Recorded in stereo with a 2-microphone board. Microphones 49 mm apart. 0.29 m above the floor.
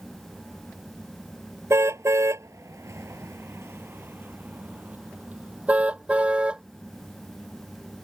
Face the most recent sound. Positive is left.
turn(degrees=-20)  # may be behind; listen again after turning